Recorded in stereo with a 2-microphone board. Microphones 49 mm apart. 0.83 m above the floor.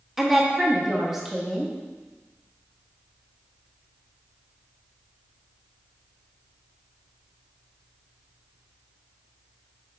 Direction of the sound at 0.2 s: 5° right (ahead or behind).